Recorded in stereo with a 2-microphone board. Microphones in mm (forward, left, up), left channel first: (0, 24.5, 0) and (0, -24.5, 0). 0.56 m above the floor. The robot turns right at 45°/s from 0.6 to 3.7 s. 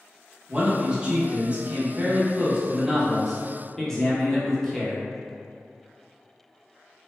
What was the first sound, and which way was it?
A man speaking, 20° right (ahead or behind).